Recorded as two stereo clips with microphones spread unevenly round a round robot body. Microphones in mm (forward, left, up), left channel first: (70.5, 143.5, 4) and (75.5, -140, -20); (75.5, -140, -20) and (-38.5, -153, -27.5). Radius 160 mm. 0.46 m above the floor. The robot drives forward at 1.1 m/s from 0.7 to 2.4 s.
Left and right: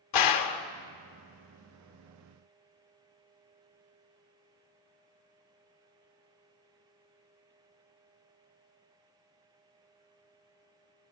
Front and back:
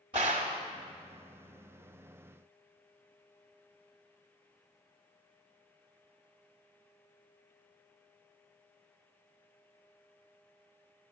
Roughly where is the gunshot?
Behind left.